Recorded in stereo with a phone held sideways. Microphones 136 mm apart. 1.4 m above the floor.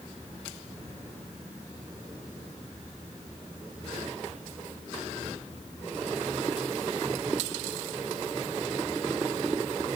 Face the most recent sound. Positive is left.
No sound to turn to.